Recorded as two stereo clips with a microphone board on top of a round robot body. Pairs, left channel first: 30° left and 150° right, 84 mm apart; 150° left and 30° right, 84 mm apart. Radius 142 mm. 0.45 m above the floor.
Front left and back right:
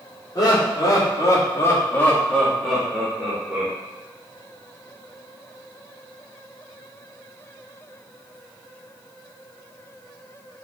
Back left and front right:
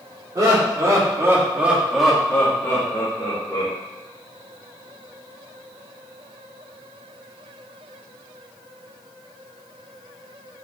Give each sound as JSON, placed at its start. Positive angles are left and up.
{"t": 0.3, "sound": "laughter", "azimuth_deg": 0, "distance_m": 2.0}